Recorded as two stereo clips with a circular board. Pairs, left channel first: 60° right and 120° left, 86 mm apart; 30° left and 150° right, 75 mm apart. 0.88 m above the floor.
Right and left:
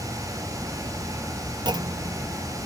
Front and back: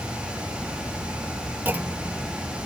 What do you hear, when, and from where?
1.6 s a clunk: 150° left